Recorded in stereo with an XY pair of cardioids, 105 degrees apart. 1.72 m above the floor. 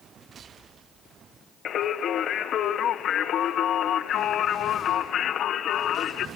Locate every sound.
1.6 s singing: 65° left, 1.4 m